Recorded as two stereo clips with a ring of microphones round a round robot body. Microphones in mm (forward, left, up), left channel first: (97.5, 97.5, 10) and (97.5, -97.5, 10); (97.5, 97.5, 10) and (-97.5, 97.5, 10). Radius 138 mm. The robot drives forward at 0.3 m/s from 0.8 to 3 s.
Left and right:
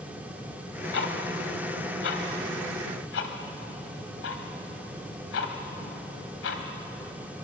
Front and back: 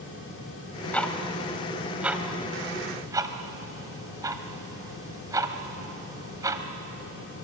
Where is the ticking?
85° left, 1.6 m; by 6.6 s 110° left, 1.6 m.